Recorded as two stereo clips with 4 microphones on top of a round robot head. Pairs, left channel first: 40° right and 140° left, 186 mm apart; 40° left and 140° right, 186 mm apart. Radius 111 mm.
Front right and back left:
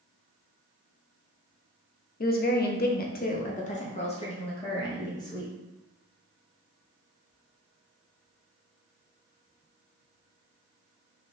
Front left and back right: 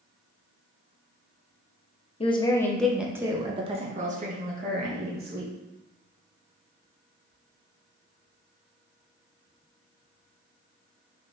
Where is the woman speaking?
15° right, 0.8 m; by 5.5 s 110° right, 1.7 m.